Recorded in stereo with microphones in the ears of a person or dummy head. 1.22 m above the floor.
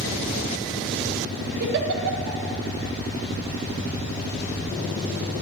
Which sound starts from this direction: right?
A giggle, at 1.6 s.